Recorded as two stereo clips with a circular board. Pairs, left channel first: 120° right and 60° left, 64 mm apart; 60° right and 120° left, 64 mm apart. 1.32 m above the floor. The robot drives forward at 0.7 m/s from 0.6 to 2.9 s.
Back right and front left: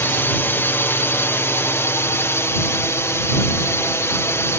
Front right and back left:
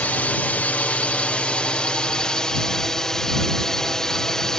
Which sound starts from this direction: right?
A drone, at 0.0 s.